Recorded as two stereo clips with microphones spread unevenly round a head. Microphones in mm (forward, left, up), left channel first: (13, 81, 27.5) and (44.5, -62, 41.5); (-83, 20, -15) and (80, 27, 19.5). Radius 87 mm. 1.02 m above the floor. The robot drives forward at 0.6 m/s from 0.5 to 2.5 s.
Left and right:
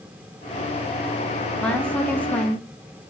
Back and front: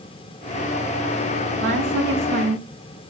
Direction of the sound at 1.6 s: 20° left.